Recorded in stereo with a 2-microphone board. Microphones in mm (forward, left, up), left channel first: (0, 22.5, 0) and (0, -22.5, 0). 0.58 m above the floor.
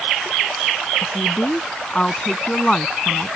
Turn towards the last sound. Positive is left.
turn(degrees=10)  # may be behind; listen again after turning